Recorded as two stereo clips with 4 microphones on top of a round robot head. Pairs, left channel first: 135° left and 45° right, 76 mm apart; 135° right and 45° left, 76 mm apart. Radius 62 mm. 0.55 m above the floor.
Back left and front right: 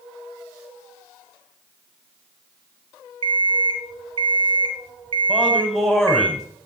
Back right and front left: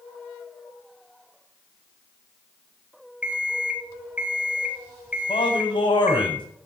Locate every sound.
3.2 s an alarm clock: 30° right, 2.5 m
5.3 s a man speaking: 125° right, 4.5 m